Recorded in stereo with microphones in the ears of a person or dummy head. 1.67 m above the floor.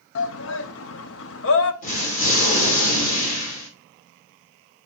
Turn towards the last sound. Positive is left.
turn(degrees=45)  # may be behind; listen again after turning